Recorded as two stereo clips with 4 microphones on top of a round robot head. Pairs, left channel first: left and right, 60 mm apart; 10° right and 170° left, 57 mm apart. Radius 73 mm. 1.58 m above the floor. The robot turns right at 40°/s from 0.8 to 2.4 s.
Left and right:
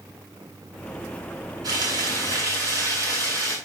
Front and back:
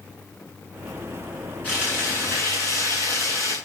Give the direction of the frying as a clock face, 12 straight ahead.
2 o'clock.